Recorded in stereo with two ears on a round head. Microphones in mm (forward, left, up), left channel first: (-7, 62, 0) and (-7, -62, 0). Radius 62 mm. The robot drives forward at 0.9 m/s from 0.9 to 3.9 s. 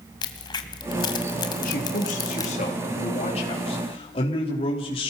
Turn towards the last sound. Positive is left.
turn(degrees=40)  # may be behind; listen again after turning